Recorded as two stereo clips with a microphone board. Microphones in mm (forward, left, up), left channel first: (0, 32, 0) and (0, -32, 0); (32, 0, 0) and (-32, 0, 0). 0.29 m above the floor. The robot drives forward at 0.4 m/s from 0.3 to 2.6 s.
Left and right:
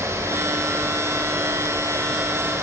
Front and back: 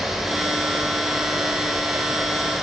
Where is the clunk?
I don't hear a clunk.